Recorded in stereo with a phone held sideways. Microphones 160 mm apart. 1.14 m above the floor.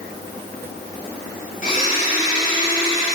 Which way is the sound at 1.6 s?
50° left (ahead or behind).